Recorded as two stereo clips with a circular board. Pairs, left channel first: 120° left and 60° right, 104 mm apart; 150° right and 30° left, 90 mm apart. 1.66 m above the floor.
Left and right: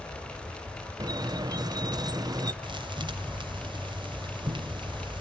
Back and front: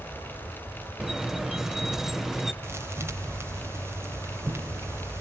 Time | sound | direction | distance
1.0 | a squeak | 55° right | 0.7 m
2.6 | a thud | 30° right | 2.5 m